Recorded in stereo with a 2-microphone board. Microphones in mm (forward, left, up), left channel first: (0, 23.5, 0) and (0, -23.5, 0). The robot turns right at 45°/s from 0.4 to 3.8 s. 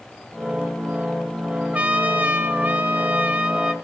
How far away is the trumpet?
About 1.1 m.